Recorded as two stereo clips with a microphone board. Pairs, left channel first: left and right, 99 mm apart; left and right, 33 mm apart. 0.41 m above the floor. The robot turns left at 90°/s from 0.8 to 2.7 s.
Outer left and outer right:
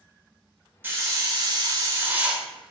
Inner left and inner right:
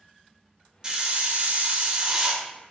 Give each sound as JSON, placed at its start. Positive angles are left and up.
{"t": 0.8, "sound": "a hiss", "azimuth_deg": -35, "distance_m": 1.0}